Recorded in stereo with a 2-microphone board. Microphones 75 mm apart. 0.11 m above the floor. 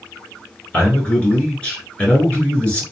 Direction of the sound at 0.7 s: 15° left (ahead or behind).